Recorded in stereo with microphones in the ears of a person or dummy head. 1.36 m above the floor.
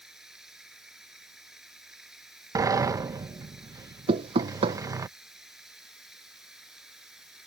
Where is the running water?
5° right (ahead or behind).